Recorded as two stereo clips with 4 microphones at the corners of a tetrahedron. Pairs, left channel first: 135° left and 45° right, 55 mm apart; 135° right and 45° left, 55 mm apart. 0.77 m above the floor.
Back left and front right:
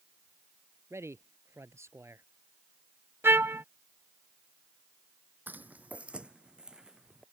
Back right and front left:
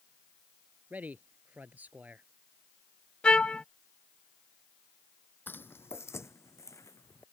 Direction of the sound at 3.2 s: 70° right.